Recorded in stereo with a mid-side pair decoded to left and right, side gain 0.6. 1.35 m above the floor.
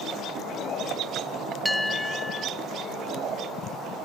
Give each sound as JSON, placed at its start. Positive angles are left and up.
{"t": 1.6, "sound": "a bell", "azimuth_deg": 0, "distance_m": 0.7}